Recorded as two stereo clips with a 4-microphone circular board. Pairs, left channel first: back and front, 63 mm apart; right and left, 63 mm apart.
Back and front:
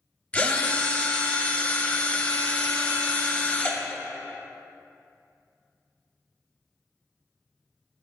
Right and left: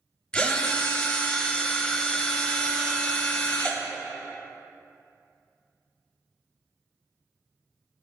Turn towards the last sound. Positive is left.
turn(degrees=-145)